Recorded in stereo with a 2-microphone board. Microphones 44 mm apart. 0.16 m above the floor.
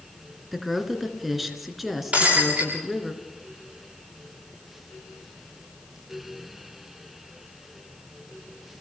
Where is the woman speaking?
5° right (ahead or behind), 2.5 m.